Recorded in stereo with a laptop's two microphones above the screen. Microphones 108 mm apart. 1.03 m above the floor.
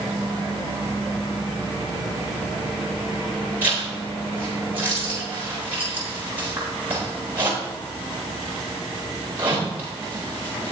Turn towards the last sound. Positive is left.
turn(degrees=-20)  # may be behind; listen again after turning